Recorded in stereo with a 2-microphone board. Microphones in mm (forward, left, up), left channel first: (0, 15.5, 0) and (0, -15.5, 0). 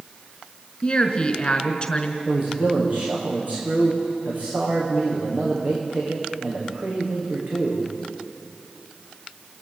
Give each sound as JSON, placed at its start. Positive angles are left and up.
{"t": 0.8, "sound": "a woman speaking", "side_deg": 30, "distance_m": 1.9}
{"t": 2.2, "sound": "a man speaking", "side_deg": -60, "distance_m": 9.5}